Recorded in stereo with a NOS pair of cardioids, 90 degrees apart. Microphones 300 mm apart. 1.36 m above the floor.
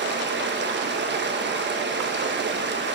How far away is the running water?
About 1.3 m.